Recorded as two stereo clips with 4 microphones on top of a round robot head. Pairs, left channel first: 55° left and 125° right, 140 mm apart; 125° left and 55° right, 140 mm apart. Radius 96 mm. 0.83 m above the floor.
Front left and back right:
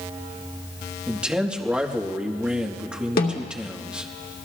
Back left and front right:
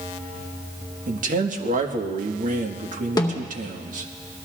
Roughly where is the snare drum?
Ahead left.